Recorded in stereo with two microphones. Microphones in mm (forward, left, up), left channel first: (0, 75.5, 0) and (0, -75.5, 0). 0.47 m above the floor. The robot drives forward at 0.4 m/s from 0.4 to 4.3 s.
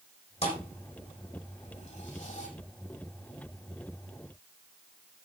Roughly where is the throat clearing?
No throat clearing in this recording.